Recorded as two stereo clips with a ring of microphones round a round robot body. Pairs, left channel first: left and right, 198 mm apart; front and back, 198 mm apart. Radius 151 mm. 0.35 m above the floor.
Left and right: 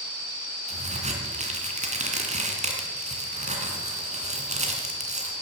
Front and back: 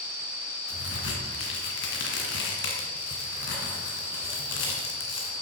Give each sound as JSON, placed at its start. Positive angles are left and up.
{"t": 0.7, "sound": "a crack", "azimuth_deg": -35, "distance_m": 2.5}